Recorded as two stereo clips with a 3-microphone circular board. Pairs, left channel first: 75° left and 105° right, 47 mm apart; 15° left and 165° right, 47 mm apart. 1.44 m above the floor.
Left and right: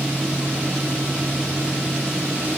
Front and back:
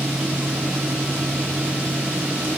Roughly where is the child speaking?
No child speaking in this recording.